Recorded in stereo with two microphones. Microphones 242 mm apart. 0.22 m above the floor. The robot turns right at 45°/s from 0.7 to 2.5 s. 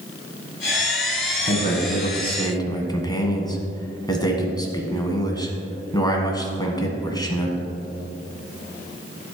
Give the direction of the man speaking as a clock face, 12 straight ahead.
8 o'clock.